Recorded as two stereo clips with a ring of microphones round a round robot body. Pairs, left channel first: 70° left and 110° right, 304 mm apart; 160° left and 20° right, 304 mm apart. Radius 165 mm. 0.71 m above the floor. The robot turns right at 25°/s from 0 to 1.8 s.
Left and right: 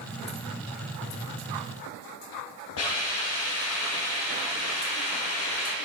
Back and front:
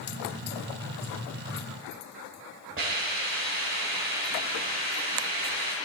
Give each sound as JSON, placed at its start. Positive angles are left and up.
{"t": 2.8, "sound": "a hiss", "azimuth_deg": 30, "distance_m": 2.0}